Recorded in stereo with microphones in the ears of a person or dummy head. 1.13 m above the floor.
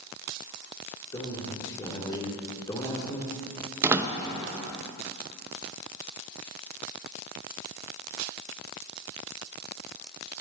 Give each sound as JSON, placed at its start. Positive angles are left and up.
{"t": 1.1, "sound": "a man speaking", "side_deg": 20, "distance_m": 2.5}
{"t": 3.8, "sound": "a door slam", "side_deg": -10, "distance_m": 0.8}